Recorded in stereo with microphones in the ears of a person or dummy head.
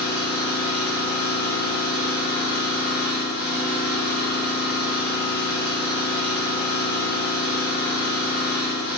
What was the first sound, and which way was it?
An engine running, 35° left (ahead or behind).